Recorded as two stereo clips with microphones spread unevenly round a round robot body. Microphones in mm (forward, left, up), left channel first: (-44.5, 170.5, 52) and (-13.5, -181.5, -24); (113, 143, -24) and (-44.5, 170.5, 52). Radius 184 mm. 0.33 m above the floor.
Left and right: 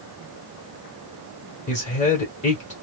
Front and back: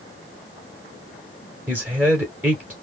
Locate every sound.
1.7 s a man speaking: 30° left, 1.5 m